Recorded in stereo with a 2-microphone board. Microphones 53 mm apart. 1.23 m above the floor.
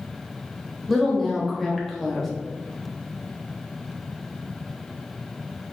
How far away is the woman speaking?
About 1.1 m.